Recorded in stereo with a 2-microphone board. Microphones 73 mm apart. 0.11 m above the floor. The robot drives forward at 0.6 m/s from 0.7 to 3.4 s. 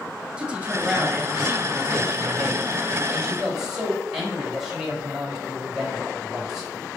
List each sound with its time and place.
0.4 s a man speaking: 15° right (ahead or behind), 1.3 m; by 6.7 s 10° right (ahead or behind), 2.5 m